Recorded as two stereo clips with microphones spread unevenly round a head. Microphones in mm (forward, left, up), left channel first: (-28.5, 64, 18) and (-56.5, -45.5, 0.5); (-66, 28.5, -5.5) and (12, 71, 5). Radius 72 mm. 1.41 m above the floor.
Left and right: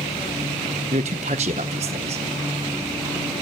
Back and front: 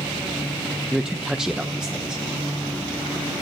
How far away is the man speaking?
About 0.8 m.